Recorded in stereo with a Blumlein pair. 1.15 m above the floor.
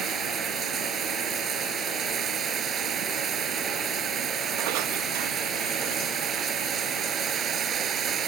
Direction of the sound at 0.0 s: 25° right.